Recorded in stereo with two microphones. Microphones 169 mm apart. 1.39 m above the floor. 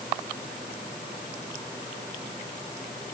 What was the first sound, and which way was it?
Only background noise.